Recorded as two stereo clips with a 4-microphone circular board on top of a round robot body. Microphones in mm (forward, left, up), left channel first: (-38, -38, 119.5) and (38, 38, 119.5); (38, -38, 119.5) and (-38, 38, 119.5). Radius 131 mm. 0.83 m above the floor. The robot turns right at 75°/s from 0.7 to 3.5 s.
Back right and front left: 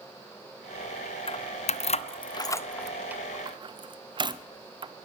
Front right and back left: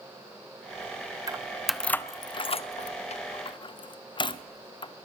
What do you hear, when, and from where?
1.3 s keys jangling: 170° right, 0.7 m; by 4.9 s straight ahead, 0.7 m